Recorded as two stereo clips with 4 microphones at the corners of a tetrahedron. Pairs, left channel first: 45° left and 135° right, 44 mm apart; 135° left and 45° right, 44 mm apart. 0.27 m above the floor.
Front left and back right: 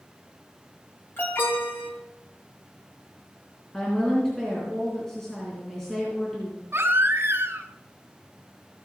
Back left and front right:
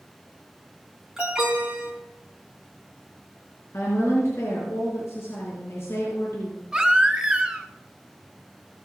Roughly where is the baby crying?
Behind right.